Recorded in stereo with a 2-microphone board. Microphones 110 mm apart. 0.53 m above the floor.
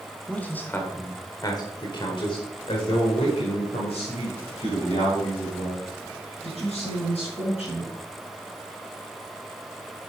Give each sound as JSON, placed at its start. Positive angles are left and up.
{"t": 0.3, "sound": "a man speaking", "side_deg": 10, "distance_m": 1.5}